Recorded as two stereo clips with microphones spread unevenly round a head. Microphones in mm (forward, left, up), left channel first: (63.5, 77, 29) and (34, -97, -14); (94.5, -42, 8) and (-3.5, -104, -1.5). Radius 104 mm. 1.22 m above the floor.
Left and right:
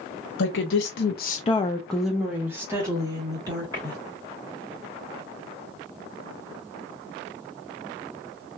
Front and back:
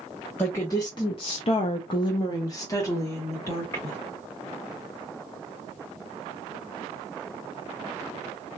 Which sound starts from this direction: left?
A woman speaking, at 0.4 s.